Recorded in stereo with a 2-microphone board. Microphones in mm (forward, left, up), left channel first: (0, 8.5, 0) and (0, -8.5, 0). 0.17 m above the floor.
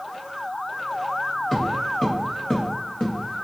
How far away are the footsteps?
About 1.2 m.